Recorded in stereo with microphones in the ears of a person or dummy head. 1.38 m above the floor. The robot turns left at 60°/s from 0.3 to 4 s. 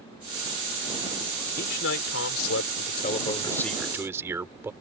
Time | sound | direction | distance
1.6 | a man speaking | 135° left | ?